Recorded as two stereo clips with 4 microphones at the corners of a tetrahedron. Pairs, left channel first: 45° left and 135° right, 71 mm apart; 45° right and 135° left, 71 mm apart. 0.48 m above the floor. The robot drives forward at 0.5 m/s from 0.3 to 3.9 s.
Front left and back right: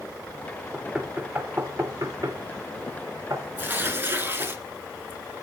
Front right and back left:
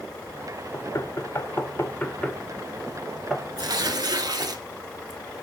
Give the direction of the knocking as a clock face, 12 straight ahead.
2 o'clock.